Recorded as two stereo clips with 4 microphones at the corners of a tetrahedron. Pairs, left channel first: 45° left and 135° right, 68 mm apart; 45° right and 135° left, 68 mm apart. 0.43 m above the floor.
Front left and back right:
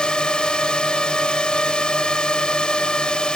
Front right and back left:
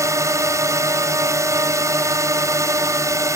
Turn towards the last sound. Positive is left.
turn(degrees=120)